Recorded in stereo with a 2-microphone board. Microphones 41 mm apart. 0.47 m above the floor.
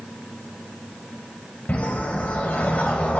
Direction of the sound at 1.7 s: 35° left (ahead or behind).